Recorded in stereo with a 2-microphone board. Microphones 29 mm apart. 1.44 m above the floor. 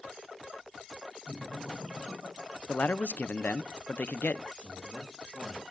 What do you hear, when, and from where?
1.3 s laughter: 80° right, 5.5 m; by 3.7 s 85° right, 7 m
2.7 s a man speaking: 70° left (ahead or behind), 0.6 m
4.5 s a man speaking: 60° right (ahead or behind), 6.5 m